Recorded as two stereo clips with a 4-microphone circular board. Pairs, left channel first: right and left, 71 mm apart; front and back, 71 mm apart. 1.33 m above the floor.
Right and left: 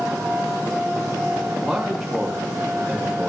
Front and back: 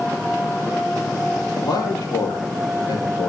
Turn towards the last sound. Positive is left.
turn(degrees=-5)